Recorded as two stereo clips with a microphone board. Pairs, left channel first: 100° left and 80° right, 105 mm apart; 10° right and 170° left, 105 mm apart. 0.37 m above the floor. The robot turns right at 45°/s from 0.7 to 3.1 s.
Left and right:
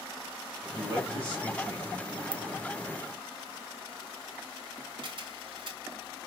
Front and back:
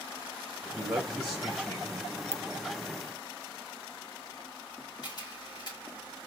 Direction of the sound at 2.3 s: 80° right.